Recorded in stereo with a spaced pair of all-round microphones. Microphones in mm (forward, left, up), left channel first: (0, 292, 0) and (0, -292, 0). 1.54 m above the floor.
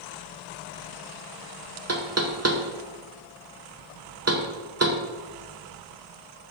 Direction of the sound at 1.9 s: 25° right (ahead or behind).